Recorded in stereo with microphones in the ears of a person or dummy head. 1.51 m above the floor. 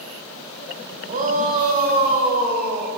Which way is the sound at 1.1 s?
40° right (ahead or behind).